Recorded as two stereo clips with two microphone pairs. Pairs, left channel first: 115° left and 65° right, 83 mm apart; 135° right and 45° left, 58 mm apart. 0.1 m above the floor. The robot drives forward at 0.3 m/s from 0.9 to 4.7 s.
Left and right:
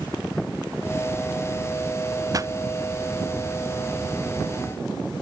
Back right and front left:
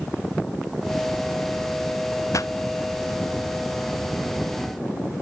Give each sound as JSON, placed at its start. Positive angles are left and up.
{"t": 2.3, "sound": "a pop", "azimuth_deg": -110}